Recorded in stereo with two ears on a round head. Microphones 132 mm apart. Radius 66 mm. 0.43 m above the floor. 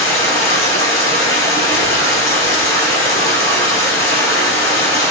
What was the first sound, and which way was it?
Running water, 20° left (ahead or behind).